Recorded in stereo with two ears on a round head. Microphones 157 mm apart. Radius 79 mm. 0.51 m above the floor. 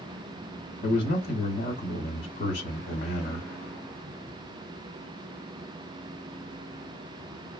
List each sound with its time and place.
0.8 s a man speaking: 45° left (ahead or behind), 1.2 m